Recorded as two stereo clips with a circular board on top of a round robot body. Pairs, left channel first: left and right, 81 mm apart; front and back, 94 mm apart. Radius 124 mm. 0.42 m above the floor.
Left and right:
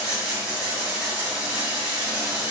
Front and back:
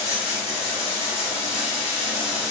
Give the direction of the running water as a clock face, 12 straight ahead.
12 o'clock.